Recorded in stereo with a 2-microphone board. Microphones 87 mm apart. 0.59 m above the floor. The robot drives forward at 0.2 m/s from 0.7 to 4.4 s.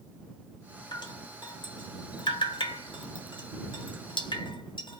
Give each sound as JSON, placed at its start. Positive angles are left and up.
{"t": 0.9, "sound": "dripping", "side_deg": 55, "distance_m": 1.1}